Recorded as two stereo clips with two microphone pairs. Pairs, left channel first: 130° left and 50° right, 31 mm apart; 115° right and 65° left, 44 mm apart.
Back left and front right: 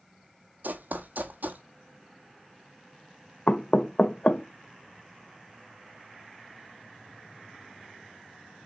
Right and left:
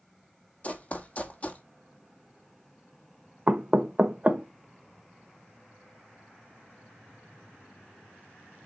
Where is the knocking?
115° left, 0.7 m.